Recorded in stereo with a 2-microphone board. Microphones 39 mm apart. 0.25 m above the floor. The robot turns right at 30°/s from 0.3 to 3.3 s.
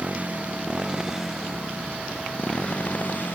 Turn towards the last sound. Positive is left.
turn(degrees=55)